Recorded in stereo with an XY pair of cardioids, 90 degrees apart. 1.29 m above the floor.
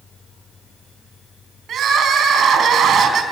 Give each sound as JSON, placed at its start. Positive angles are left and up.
{"t": 1.7, "sound": "crying", "azimuth_deg": -70, "distance_m": 4.0}